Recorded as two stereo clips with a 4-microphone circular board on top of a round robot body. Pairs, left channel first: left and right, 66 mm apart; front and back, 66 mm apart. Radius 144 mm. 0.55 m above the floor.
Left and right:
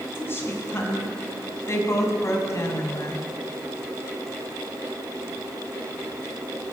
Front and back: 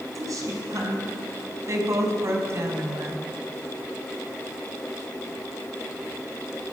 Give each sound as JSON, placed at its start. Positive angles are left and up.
{"t": 0.1, "sound": "a woman speaking", "azimuth_deg": 145, "distance_m": 7.5}